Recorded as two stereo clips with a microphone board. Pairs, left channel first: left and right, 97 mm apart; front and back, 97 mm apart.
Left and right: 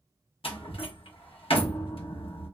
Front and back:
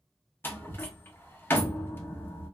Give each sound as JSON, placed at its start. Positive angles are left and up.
{"t": 0.4, "sound": "a door slam", "azimuth_deg": 70, "distance_m": 0.8}